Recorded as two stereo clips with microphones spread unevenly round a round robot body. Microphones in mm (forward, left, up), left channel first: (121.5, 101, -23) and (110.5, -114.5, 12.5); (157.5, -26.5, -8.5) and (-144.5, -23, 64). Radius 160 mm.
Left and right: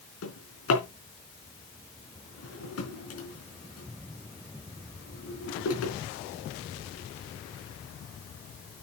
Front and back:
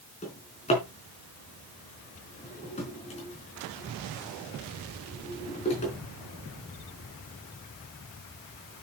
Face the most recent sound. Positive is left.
turn(degrees=70)